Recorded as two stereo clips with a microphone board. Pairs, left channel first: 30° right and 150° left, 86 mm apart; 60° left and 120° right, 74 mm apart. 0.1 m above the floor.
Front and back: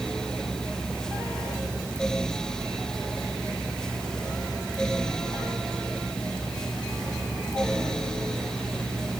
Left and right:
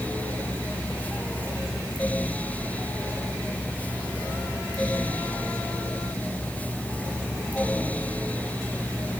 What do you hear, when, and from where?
Only background noise.